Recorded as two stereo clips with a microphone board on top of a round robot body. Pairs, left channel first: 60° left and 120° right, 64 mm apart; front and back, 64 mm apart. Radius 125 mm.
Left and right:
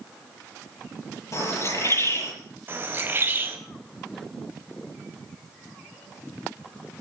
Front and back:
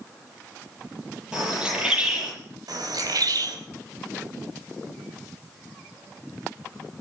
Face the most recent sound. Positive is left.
turn(degrees=-170)